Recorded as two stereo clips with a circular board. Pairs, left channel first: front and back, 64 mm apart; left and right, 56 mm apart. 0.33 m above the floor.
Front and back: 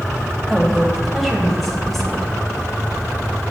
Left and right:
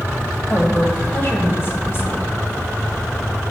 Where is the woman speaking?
85° left, 1.8 m.